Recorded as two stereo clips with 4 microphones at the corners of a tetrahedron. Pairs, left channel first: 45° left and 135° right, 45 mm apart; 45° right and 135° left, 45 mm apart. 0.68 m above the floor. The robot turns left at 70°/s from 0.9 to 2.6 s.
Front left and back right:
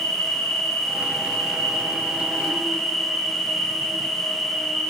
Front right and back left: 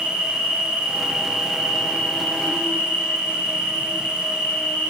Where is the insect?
90° left, 2 m; by 4.9 s 30° right, 2 m.